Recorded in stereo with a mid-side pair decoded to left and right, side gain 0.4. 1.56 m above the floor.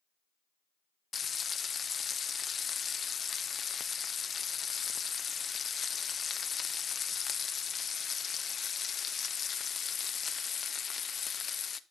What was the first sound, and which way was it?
Frying, 45° left.